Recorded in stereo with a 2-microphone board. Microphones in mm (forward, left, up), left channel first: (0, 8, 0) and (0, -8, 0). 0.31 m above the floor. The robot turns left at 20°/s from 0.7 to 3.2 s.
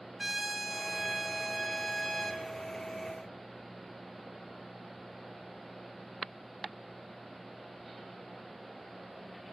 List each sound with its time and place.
0.2 s a trumpet: straight behind, 3.5 m; by 2.4 s 145° left, 3.5 m